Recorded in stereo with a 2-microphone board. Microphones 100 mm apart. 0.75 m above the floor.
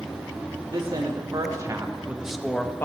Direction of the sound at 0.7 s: 50° right (ahead or behind).